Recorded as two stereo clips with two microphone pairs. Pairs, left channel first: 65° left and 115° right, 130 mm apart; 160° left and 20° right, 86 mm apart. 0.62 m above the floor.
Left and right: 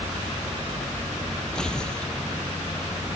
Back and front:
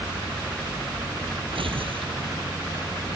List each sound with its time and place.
1.6 s tearing paper: 20° right